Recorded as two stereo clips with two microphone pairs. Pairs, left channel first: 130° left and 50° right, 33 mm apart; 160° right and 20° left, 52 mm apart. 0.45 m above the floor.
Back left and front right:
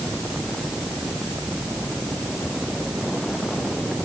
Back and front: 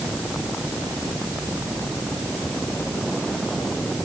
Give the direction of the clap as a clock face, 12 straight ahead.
I don't hear a clap.